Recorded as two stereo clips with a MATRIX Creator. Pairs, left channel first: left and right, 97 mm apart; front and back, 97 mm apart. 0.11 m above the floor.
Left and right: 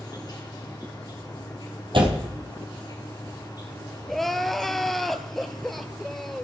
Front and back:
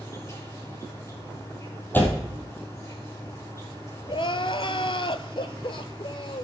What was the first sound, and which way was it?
An insect, 55° left.